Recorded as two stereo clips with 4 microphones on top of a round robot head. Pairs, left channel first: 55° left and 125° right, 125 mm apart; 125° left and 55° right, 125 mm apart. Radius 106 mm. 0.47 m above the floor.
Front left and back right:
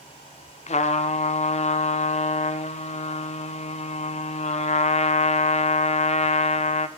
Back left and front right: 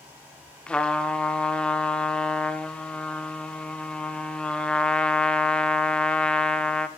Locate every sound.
0.7 s a trumpet: 40° left, 0.5 m